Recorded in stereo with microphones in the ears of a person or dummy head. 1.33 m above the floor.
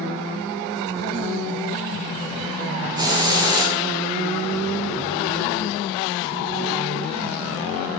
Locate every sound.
3.0 s a hiss: 20° right (ahead or behind), 0.7 m